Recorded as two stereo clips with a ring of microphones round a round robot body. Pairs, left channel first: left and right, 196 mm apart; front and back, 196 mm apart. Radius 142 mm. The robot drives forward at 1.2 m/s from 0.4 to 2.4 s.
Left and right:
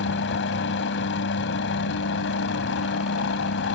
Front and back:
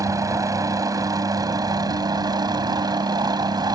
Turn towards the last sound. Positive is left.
turn(degrees=110)